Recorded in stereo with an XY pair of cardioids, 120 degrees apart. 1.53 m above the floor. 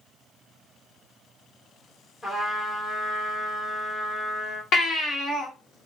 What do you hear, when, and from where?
2.2 s a trumpet: 25° left, 1.2 m
4.7 s a baby crying: 55° left, 1.2 m